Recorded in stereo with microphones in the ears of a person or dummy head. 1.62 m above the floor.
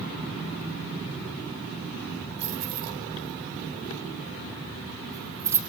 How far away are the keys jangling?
About 4 m.